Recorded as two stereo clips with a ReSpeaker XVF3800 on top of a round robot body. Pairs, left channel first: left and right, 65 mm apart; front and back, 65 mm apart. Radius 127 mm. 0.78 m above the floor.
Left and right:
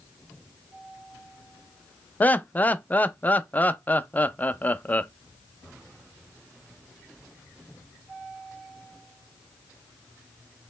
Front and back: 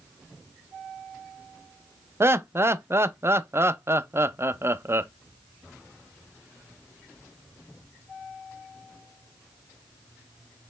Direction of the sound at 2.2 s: 145° left.